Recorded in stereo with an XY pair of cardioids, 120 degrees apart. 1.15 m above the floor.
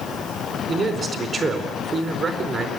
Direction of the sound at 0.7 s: 40° right.